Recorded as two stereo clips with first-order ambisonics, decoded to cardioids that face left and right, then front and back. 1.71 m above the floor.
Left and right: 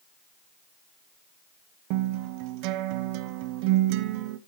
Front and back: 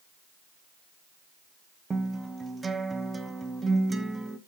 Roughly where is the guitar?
Right.